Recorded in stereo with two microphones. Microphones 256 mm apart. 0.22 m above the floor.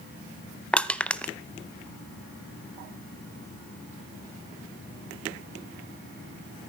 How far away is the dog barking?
I don't hear a dog barking.